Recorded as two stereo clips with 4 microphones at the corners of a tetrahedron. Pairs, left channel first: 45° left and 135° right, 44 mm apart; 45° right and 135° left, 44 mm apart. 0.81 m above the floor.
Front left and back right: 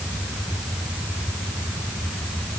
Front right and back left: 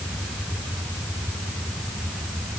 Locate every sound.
Only background noise.